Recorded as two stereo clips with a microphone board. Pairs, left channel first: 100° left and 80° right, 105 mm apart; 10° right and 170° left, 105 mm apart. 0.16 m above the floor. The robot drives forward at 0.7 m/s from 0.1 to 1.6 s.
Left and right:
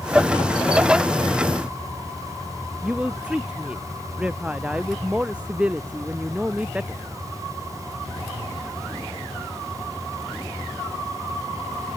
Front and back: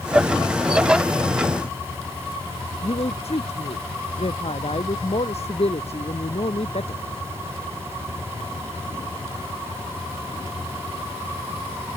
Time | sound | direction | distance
2.8 | a woman speaking | straight ahead | ?